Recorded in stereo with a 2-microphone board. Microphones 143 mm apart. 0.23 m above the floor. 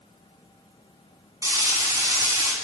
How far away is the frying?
About 1.1 m.